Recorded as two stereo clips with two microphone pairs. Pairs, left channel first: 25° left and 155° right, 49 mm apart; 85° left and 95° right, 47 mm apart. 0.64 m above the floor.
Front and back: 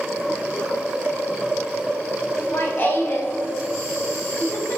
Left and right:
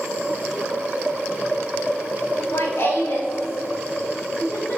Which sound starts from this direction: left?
Laughter, at 2.4 s.